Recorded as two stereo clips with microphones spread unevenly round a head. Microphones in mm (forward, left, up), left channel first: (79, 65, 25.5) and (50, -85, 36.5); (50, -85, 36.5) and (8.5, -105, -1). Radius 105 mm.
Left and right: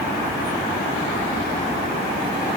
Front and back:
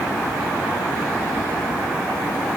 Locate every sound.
Only background noise.